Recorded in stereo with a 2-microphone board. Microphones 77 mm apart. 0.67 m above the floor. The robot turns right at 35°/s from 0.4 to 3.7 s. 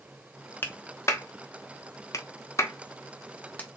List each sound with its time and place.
0.6 s a clap: 30° left (ahead or behind), 0.9 m; by 3.7 s 20° left (ahead or behind), 0.9 m